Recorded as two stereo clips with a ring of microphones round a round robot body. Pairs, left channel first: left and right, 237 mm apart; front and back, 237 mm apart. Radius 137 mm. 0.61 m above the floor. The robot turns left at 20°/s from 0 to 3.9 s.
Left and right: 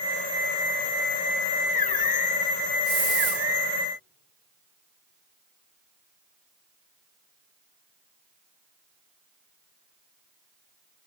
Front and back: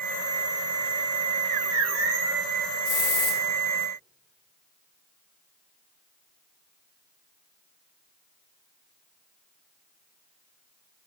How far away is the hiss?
About 2 m.